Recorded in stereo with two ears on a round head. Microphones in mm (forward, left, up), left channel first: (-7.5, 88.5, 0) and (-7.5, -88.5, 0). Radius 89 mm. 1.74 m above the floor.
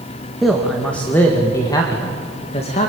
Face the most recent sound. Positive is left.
turn(degrees=35)  # may be behind; listen again after turning